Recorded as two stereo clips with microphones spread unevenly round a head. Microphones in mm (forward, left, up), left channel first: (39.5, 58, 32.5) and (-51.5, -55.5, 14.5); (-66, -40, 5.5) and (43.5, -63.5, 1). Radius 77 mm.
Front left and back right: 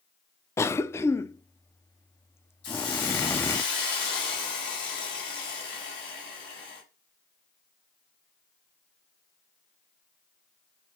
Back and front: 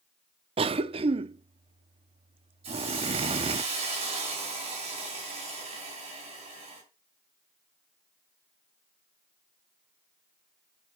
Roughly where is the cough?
Ahead right.